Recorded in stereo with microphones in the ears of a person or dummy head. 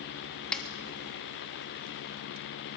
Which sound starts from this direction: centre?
A snare drum, at 0.5 s.